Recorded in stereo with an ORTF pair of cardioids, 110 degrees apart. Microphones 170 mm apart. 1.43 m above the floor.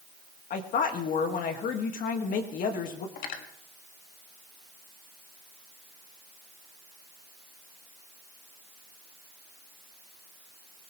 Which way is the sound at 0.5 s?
55° left.